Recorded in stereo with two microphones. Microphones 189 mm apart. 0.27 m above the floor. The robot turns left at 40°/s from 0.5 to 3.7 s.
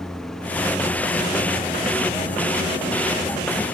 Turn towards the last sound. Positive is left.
turn(degrees=50)